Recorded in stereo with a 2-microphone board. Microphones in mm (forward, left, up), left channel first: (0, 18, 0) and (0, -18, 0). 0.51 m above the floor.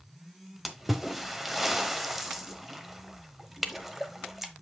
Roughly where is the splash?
Centre.